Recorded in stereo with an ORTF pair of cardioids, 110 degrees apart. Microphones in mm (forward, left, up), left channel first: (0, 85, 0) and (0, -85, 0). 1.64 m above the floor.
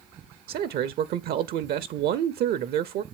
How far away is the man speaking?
About 0.5 m.